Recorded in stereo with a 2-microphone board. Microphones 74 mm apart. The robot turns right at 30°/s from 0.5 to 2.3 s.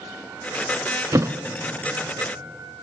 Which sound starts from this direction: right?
A thud, at 1.1 s.